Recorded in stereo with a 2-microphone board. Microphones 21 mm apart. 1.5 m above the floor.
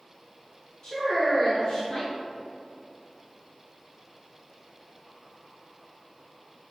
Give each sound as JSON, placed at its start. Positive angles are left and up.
{"t": 0.8, "sound": "a woman speaking", "side_deg": 35, "distance_m": 1.9}